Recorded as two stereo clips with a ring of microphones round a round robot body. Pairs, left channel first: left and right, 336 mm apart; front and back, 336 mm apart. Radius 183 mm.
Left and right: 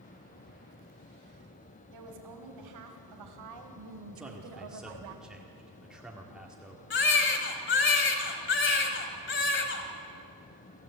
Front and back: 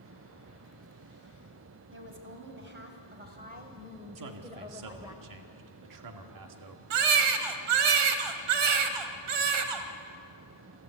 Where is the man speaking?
Straight behind, 1.9 m.